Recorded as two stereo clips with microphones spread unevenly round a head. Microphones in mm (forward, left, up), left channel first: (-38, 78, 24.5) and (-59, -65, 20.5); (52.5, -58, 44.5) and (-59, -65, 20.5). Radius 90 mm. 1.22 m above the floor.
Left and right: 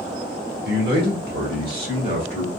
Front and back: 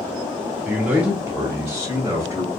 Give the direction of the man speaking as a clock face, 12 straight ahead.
3 o'clock.